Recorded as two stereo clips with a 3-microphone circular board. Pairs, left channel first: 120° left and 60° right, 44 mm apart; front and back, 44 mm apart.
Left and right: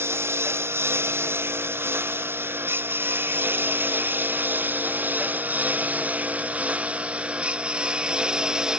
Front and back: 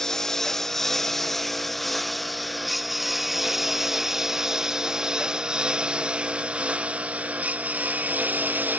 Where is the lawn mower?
80° right; by 8.8 s 135° right.